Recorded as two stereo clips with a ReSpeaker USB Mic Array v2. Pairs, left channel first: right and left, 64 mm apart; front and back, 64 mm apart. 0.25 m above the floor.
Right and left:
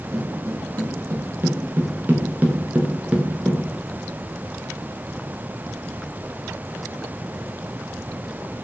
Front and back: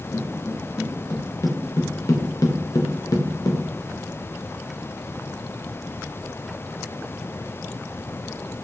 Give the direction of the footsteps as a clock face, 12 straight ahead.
10 o'clock.